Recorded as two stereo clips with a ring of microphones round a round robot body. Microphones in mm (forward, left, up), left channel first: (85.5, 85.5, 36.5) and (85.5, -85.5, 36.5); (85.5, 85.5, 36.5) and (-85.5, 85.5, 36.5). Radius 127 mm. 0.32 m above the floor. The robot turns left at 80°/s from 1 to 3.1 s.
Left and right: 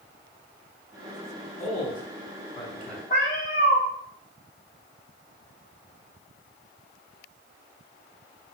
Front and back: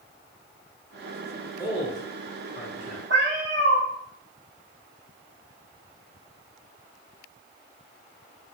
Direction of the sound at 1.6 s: 85° left.